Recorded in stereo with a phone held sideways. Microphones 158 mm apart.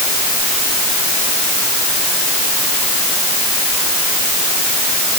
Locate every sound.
Only background noise.